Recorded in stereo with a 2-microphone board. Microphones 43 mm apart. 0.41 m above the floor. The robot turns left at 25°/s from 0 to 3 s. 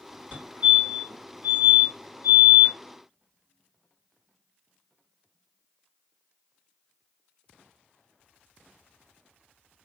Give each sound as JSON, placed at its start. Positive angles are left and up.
{"t": 0.3, "sound": "a fire alarm", "side_deg": -35, "distance_m": 2.5}